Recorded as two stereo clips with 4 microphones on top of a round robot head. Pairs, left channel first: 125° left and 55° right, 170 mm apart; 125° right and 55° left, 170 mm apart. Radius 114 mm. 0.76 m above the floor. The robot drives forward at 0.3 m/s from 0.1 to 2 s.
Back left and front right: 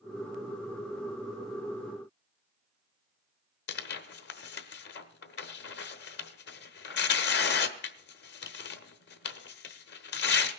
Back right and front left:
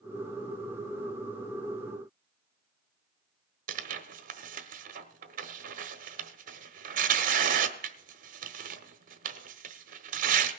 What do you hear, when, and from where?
3.7 s tearing paper: 100° left, 0.9 m